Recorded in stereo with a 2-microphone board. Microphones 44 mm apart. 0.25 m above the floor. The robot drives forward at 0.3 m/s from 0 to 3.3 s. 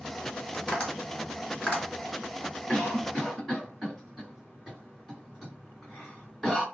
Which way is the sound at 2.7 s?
10° left (ahead or behind).